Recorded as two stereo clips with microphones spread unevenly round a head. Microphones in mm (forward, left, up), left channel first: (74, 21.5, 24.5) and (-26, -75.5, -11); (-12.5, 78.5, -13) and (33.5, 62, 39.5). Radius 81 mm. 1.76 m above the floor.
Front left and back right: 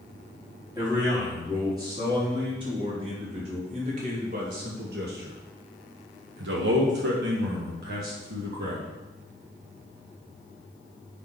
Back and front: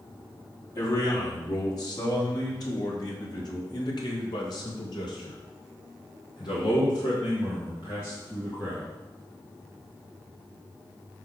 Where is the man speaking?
150° left, 3.5 m; by 8.8 s 105° right, 2 m.